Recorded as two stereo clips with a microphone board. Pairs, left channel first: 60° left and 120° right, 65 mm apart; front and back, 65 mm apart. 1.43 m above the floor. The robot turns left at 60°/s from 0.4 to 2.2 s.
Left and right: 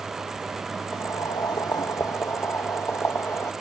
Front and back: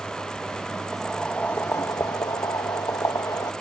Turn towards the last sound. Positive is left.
turn(degrees=15)